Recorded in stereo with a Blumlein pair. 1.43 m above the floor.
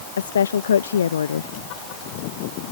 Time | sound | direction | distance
0.2 | a woman speaking | 65° left | ?